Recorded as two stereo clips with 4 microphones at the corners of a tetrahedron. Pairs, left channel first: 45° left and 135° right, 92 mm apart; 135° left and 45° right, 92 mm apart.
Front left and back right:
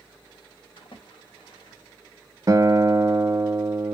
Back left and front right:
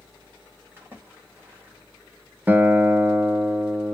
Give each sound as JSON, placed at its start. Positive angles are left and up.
{"t": 0.8, "sound": "a splash", "azimuth_deg": 20, "distance_m": 1.9}
{"t": 2.5, "sound": "a guitar", "azimuth_deg": -100, "distance_m": 0.5}